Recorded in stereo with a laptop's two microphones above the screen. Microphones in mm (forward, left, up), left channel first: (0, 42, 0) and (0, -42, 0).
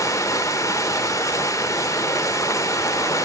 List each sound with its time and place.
0.0 s running water: 40° left (ahead or behind), 0.8 m